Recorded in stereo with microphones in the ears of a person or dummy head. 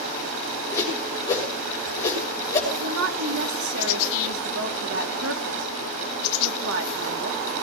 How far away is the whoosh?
About 6 m.